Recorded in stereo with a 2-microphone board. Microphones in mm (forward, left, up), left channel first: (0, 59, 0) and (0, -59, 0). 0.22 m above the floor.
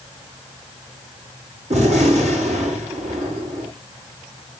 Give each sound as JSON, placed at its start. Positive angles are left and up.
{"t": 1.7, "sound": "a gunshot", "side_deg": -65, "distance_m": 9.0}